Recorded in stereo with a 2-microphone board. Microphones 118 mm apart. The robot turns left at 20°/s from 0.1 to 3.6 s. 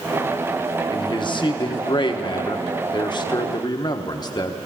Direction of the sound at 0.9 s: 110° left.